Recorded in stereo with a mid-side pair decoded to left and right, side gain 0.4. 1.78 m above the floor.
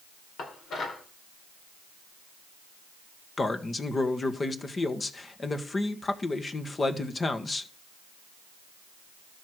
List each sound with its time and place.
0.4 s dishes clattering: 70° left, 4 m
3.4 s a man speaking: 35° left, 1.8 m